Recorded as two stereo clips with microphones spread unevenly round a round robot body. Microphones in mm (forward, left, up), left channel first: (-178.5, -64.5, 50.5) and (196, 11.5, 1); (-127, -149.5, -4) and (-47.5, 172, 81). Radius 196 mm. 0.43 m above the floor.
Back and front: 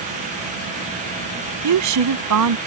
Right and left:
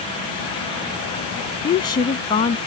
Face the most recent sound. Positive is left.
turn(degrees=-30)